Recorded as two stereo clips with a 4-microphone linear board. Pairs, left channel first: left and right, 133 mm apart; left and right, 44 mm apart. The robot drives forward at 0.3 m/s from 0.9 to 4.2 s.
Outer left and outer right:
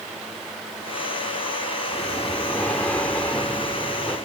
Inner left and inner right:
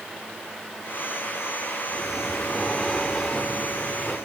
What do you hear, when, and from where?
1.9 s breathing: 10° left (ahead or behind), 1.7 m